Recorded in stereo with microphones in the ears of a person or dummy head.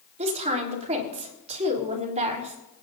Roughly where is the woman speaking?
Right.